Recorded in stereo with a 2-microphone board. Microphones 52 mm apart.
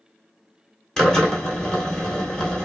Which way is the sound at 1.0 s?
15° left (ahead or behind).